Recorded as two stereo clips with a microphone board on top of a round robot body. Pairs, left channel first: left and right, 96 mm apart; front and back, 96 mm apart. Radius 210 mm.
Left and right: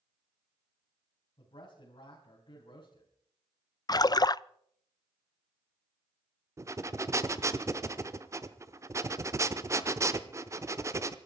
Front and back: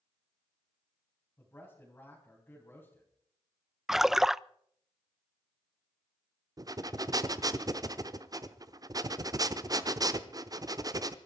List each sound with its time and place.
1.4 s a man speaking: 70° left, 4.5 m
3.9 s a splash: 95° left, 0.5 m
6.6 s breathing: 140° right, 1.1 m